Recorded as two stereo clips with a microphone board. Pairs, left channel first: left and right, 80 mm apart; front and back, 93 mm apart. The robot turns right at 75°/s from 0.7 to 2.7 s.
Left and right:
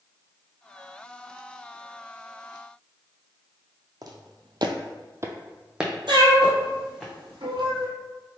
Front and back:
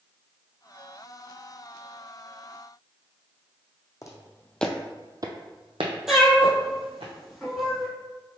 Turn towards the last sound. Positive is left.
turn(degrees=-95)